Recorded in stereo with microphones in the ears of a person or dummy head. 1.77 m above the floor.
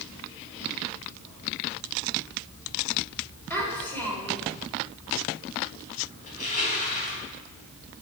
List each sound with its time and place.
3.5 s a child speaking: 10° left (ahead or behind), 4.5 m
6.3 s crushing: 40° left (ahead or behind), 4 m